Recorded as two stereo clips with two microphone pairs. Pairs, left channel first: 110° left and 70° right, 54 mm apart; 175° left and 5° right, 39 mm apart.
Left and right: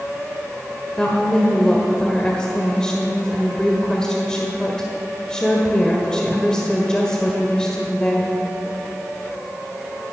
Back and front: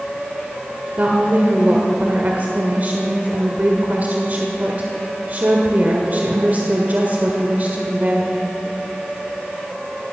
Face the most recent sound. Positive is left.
turn(degrees=35)